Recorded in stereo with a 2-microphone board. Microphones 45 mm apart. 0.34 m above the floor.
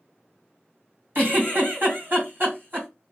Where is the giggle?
50° right (ahead or behind), 2 m.